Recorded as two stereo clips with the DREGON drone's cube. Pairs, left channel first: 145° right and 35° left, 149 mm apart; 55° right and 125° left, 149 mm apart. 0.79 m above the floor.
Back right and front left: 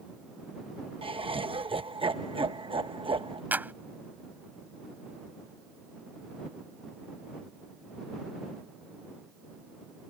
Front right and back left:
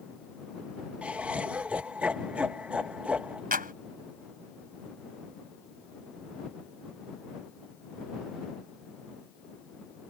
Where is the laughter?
50° left.